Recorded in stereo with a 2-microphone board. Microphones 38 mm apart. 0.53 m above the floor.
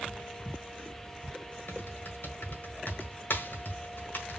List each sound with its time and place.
1.7 s typing on a keyboard: 65° left (ahead or behind), 1.6 m